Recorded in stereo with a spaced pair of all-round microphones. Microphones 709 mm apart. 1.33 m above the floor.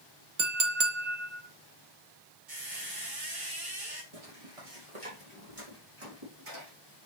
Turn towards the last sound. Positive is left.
turn(degrees=-45)  # may be behind; listen again after turning